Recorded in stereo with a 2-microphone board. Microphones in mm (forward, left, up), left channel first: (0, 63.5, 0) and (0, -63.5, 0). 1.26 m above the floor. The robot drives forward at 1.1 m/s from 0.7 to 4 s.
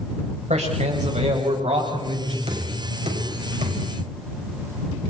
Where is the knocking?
50° right (ahead or behind), 7 m; by 3.8 s 60° right (ahead or behind), 6.5 m.